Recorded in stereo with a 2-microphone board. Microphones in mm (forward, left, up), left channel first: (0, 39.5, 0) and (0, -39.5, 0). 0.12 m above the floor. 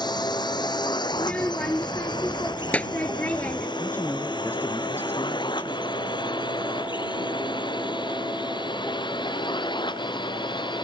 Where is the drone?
60° left (ahead or behind); by 10.8 s 70° left (ahead or behind).